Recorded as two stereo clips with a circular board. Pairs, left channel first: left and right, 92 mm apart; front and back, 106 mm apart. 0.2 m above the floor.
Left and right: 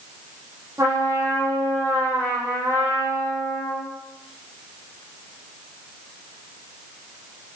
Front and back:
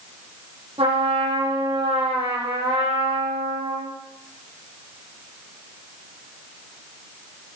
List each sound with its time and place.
0.8 s a trumpet: 150° right, 8 m